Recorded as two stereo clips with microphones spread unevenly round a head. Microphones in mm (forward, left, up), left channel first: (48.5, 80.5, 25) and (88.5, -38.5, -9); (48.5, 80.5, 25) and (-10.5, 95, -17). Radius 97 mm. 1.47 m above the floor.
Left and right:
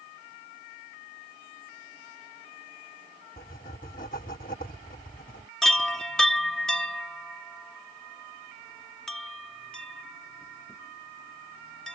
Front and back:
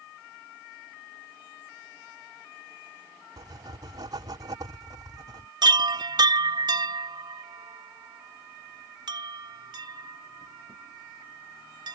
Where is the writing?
160° left.